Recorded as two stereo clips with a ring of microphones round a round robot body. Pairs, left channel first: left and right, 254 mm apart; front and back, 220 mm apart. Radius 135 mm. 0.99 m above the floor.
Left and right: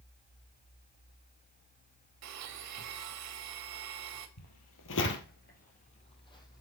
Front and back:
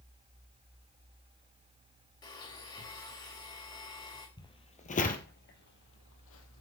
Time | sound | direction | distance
2.2 | a blender | 75° right | 1.9 m
4.4 | footsteps | 70° left | 1.9 m